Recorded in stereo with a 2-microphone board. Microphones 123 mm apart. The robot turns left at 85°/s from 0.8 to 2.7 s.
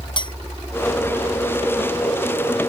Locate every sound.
0.2 s a clink: 40° left (ahead or behind)